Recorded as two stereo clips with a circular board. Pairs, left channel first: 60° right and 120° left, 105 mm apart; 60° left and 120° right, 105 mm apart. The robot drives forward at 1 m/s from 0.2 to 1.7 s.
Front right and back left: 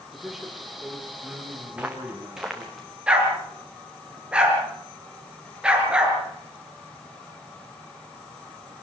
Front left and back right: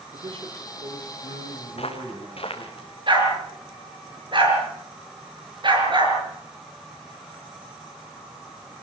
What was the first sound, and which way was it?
A man speaking, 150° right.